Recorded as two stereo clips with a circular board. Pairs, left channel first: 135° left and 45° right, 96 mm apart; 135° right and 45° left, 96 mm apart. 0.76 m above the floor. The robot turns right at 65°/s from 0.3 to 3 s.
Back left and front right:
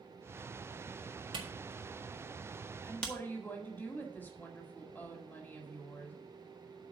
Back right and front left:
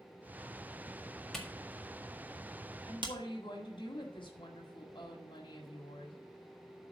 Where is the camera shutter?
50° right, 1.7 m; by 3.1 s 55° left, 1.7 m.